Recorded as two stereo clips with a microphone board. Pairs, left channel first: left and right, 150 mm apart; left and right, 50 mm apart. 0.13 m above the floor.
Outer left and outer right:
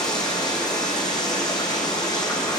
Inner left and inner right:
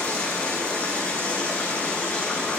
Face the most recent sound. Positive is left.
turn(degrees=25)  # may be behind; listen again after turning